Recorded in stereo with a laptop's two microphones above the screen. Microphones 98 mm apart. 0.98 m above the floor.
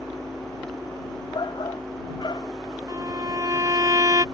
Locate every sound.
0.0 s a fan: 5° left (ahead or behind)
1.3 s a shout: 50° left (ahead or behind)
2.9 s a violin: 40° right (ahead or behind)